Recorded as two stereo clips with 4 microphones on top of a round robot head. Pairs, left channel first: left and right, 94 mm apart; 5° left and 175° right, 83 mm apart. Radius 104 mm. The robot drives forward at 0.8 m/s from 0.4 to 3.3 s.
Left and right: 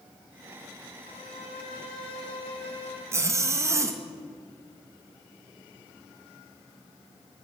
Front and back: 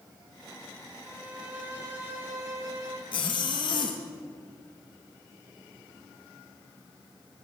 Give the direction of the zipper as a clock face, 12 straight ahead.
1 o'clock.